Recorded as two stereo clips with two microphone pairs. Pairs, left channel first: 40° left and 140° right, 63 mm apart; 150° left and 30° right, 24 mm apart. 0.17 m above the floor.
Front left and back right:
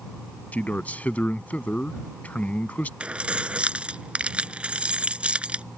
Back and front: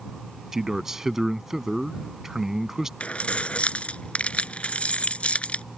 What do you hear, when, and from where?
0.5 s a man speaking: 20° left
3.0 s keys jangling: 150° left